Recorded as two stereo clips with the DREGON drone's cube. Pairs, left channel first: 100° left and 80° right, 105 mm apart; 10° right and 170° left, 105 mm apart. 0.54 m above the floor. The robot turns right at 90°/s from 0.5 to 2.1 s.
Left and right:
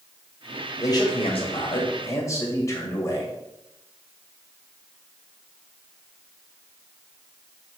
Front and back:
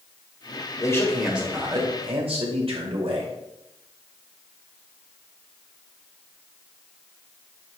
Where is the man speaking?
40° left, 2 m; by 3.3 s 160° left, 2 m.